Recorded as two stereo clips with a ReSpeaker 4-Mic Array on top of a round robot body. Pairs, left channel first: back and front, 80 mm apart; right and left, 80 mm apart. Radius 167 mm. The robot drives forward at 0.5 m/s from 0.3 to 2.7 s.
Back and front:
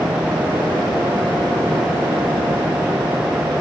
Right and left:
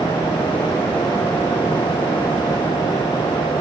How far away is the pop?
I don't hear a pop.